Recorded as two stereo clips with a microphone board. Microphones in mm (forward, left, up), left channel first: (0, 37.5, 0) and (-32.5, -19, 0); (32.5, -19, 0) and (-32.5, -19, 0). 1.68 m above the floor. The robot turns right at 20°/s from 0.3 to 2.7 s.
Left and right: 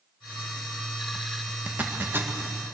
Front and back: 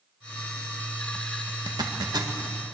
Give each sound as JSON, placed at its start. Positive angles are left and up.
{"t": 1.7, "sound": "a zipper", "azimuth_deg": 170, "distance_m": 2.0}